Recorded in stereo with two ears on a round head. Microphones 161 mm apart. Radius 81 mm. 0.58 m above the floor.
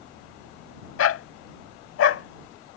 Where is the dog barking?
80° left.